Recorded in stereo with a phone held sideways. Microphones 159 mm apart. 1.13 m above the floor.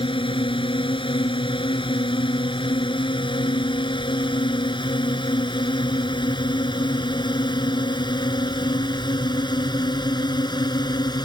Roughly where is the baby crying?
I don't hear a baby crying.